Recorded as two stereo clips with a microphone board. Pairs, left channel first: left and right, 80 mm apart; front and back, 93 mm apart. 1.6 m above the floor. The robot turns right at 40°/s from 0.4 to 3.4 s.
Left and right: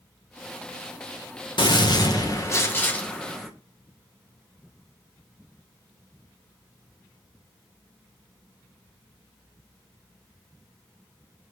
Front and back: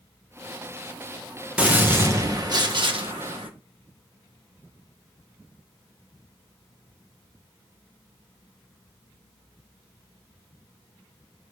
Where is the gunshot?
105° left, 1.2 m; by 3.5 s 175° left, 1.2 m.